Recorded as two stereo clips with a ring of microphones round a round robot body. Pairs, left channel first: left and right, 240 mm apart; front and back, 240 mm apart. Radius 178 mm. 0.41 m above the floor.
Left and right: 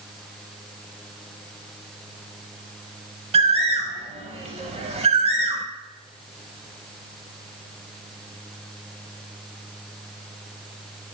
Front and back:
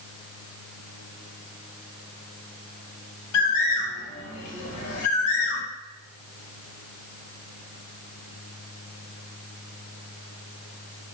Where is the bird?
20° right, 0.5 m.